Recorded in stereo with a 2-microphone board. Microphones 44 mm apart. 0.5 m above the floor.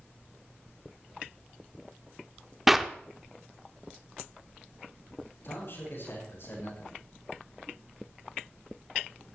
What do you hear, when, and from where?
2.7 s a clap: 5° right (ahead or behind), 0.7 m
5.4 s a man speaking: 55° left (ahead or behind), 7.5 m